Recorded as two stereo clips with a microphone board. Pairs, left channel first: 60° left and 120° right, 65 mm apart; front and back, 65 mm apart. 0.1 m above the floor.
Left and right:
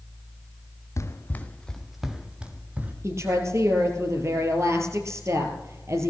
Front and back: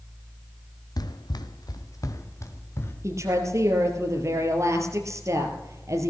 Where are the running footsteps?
20° left, 1.4 m; by 2.9 s 50° right, 3 m.